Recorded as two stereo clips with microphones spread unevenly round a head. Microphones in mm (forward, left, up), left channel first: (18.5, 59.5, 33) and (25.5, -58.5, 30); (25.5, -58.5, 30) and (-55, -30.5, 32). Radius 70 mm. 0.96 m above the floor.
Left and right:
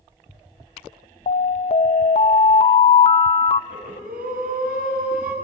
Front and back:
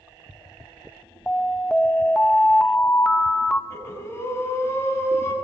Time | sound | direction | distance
1.3 | an alarm | 65° left | 0.9 m
3.7 | breathing | 80° right | 9.5 m